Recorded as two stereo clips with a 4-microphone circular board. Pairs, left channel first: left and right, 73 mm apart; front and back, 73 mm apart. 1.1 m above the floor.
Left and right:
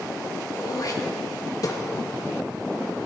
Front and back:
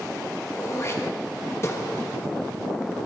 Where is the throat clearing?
50° left, 1.4 m.